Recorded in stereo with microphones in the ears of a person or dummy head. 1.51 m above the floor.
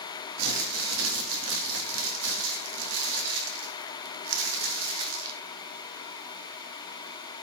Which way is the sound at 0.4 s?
80° right.